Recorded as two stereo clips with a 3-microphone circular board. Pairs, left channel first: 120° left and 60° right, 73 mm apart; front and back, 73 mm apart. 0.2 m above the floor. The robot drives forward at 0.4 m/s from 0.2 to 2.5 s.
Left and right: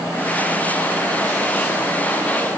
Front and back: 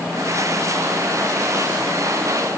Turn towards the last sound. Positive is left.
No sound to turn to.